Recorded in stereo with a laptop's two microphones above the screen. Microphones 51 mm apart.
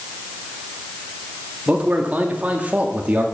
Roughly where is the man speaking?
Right.